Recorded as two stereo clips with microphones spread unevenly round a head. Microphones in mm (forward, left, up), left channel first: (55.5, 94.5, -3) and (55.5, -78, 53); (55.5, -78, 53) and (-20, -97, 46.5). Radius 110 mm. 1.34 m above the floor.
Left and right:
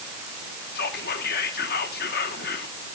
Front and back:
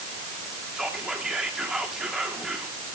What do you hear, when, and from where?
0.8 s whispering: 115° left, 1.6 m